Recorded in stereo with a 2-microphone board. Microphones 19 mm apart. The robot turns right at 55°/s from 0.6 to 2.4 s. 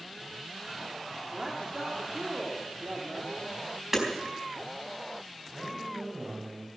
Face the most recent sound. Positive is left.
turn(degrees=-85)